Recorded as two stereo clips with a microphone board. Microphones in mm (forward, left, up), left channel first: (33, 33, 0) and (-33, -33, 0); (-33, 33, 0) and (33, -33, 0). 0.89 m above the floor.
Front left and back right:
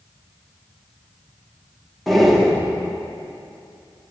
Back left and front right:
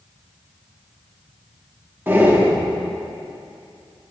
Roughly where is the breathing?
Ahead right.